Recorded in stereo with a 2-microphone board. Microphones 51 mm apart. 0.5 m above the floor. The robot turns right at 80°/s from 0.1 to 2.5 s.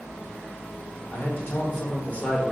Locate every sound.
1.1 s a man speaking: 55° left, 1.3 m; by 2.5 s 165° left, 1.3 m